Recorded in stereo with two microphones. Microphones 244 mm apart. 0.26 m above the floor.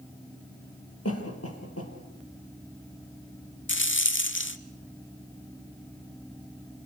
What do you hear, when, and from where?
1.1 s a cough: 75° left (ahead or behind), 6 m
3.7 s a rattle: 55° left (ahead or behind), 0.8 m